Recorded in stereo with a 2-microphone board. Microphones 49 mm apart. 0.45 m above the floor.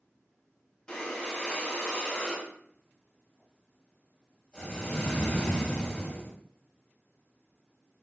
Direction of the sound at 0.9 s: 15° left (ahead or behind).